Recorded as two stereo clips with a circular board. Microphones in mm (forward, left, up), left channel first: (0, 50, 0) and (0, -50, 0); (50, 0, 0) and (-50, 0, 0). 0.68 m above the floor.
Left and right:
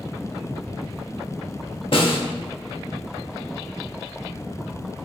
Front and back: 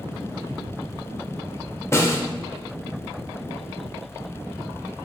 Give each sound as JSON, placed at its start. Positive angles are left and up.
{"t": 1.9, "sound": "a snare drum", "azimuth_deg": 60, "distance_m": 1.0}